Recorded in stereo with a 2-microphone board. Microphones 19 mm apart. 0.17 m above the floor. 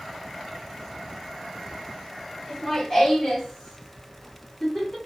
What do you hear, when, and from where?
2.5 s laughter: 30° left (ahead or behind), 1.9 m; by 5.0 s 25° left (ahead or behind), 1.8 m